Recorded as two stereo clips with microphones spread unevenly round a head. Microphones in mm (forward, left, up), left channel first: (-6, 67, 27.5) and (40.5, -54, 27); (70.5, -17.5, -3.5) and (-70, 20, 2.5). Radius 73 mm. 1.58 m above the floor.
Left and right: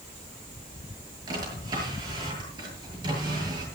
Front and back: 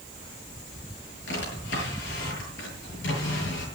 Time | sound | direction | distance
1.3 | a drawer | 10° right | 8.5 m